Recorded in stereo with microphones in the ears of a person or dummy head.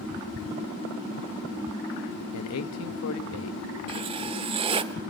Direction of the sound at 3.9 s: 30° right (ahead or behind).